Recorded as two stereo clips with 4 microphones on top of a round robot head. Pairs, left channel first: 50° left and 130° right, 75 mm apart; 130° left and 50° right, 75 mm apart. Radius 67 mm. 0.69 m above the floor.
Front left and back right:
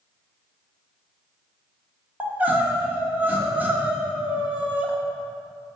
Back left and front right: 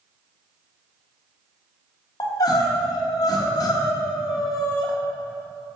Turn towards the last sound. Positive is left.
turn(degrees=160)